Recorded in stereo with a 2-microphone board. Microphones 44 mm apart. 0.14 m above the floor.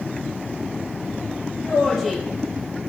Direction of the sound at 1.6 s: Centre (ahead or behind).